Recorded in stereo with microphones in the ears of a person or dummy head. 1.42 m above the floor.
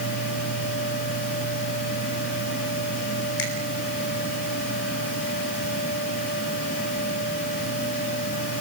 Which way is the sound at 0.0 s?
60° left (ahead or behind).